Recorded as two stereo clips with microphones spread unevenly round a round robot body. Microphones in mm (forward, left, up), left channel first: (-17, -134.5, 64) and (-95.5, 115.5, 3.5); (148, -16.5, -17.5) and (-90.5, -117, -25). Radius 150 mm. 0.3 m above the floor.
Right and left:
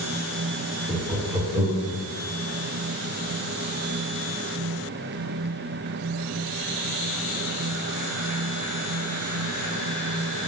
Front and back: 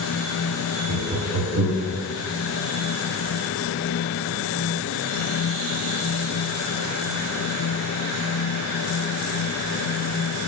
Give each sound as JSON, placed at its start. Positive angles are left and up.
{"t": 0.9, "sound": "laughter", "azimuth_deg": 175, "distance_m": 1.1}